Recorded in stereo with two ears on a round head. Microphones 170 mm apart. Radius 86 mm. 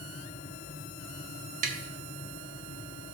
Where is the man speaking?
I don't hear a man speaking.